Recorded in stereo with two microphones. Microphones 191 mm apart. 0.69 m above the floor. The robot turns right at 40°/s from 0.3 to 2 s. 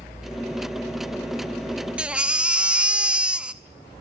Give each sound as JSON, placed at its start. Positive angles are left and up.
{"t": 2.0, "sound": "a baby crying", "side_deg": -5, "distance_m": 0.5}